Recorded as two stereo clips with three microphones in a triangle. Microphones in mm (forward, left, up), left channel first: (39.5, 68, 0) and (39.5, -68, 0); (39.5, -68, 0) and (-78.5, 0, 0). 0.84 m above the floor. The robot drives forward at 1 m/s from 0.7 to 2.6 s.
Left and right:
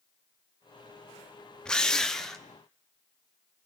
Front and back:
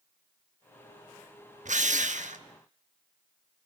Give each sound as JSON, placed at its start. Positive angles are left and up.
{"t": 1.6, "sound": "a drill", "azimuth_deg": 175, "distance_m": 0.8}